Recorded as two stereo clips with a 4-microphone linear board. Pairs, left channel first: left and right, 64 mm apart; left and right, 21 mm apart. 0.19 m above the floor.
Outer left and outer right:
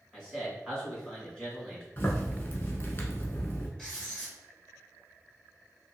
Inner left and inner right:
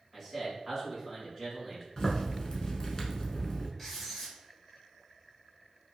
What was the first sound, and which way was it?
A man speaking, 15° left (ahead or behind).